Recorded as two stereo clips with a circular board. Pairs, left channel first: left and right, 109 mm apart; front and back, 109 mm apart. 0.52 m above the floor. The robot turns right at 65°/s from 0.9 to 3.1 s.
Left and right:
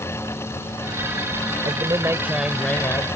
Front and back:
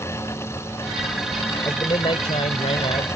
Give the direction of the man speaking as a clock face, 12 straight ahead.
2 o'clock.